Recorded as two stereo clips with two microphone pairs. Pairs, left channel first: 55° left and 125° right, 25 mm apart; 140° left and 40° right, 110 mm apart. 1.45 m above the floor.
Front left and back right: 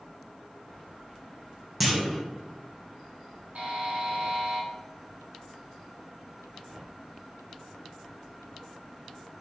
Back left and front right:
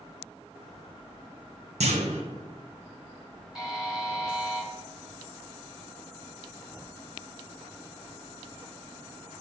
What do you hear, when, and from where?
1.8 s a clunk: 45° right, 1.3 m
3.5 s a buzzer: 130° right, 2 m